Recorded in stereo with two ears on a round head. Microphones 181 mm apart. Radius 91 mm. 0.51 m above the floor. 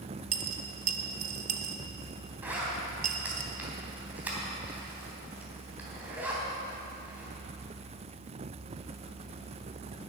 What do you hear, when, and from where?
0.3 s a dropped coin: 45° right (ahead or behind), 1.2 m
2.4 s a zipper: 10° right (ahead or behind), 3.5 m